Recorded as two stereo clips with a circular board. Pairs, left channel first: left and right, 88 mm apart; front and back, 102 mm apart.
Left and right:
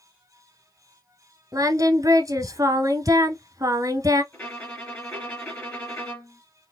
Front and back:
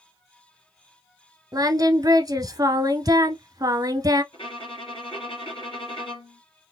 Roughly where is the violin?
Ahead.